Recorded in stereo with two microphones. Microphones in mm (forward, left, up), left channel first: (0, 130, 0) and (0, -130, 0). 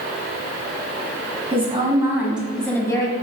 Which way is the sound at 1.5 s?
20° right (ahead or behind).